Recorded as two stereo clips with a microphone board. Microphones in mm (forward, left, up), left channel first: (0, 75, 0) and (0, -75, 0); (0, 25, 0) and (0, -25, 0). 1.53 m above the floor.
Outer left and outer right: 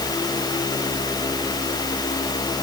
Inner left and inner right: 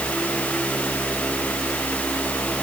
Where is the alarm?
I don't hear an alarm.